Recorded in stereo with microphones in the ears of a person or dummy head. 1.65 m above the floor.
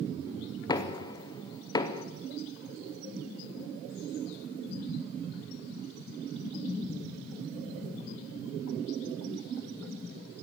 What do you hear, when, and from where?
0.7 s knocking: 20° left (ahead or behind), 0.7 m